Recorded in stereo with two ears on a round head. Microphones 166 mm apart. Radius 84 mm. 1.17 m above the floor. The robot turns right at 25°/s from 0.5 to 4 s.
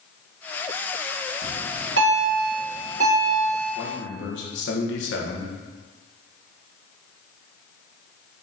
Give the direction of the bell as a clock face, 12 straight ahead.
3 o'clock.